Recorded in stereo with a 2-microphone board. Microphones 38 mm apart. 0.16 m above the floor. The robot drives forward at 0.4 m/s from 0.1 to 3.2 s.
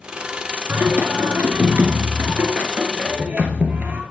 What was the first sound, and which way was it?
Singing, 50° right (ahead or behind).